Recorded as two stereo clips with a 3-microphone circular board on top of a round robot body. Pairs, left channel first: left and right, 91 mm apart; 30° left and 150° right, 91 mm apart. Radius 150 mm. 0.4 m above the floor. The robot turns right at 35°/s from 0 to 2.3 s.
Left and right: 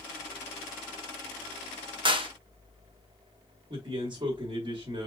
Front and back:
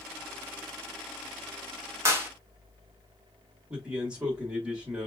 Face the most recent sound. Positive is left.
turn(degrees=-70)